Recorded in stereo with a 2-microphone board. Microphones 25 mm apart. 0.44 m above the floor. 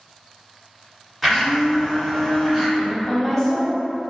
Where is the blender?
Centre (ahead or behind), 1.4 m.